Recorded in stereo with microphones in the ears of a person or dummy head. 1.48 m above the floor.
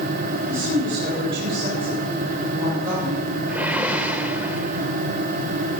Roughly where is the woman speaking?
Right.